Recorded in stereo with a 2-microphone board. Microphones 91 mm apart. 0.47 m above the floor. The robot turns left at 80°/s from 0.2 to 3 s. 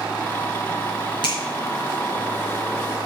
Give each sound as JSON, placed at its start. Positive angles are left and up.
{"t": 1.2, "sound": "a finger snap", "side_deg": 60, "distance_m": 5.0}